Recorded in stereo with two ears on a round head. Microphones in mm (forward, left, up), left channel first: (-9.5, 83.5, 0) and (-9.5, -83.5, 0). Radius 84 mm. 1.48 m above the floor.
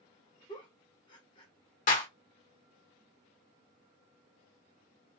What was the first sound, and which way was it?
A giggle, 25° left (ahead or behind).